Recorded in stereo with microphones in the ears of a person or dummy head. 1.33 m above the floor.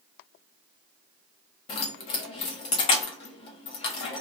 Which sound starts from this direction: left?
Keys jangling, at 1.7 s.